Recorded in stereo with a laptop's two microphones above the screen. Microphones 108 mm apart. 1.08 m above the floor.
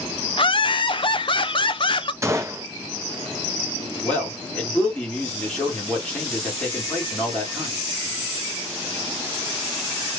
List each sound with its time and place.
0.4 s laughter: 50° left (ahead or behind), 0.5 m
2.2 s a gunshot: 25° right (ahead or behind), 0.7 m
4.0 s a man speaking: 10° left (ahead or behind), 1.8 m